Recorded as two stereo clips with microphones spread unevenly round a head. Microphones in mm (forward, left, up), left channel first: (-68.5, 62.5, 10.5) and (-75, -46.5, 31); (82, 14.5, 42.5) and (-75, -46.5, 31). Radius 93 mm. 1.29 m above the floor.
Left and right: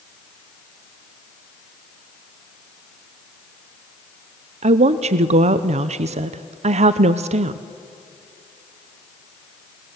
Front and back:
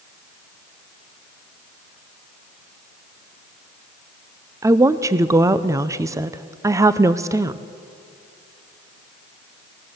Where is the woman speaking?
95° right, 0.6 m.